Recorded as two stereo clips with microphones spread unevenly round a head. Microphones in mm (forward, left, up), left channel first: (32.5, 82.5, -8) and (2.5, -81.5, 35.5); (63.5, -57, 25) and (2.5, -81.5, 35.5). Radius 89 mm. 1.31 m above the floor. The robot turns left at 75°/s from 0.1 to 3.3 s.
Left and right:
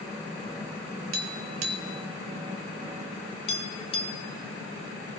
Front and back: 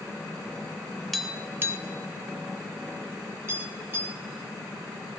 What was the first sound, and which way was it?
Tapping, 65° right.